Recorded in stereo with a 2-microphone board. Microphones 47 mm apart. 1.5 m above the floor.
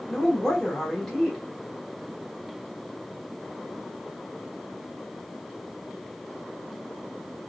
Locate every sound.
0.1 s a woman speaking: 5° left (ahead or behind), 2 m